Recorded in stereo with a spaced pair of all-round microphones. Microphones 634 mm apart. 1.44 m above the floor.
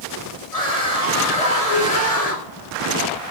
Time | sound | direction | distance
0.5 | a scream | 65° left (ahead or behind) | 7.5 m